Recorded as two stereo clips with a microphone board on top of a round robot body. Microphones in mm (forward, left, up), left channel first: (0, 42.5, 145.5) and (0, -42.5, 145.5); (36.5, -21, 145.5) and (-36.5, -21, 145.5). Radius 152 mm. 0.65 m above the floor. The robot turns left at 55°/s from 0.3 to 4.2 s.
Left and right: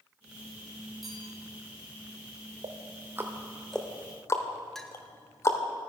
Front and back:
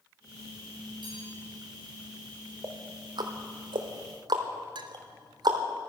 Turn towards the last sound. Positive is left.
turn(degrees=175)